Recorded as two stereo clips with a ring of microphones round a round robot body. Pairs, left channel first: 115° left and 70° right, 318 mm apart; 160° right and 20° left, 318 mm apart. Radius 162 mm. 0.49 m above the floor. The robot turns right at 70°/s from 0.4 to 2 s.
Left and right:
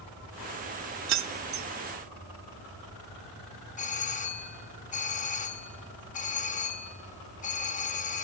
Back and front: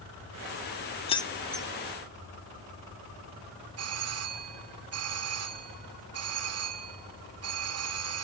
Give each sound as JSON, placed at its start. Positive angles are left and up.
{"t": 1.1, "sound": "keys jangling", "azimuth_deg": -90, "distance_m": 0.9}
{"t": 3.8, "sound": "a doorbell", "azimuth_deg": 50, "distance_m": 1.9}